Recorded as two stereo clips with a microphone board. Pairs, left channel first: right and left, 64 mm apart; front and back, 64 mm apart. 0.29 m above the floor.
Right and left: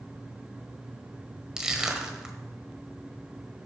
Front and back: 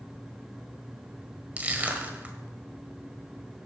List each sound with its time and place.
1.6 s crushing: 155° left, 1.5 m